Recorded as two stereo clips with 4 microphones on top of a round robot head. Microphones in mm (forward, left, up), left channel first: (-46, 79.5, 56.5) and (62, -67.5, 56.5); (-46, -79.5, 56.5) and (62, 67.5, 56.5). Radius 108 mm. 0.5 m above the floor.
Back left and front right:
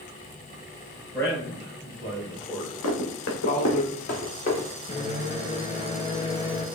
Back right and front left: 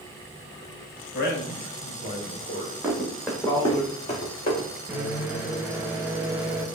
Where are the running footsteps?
135° left, 1.6 m; by 4.7 s straight behind, 2 m.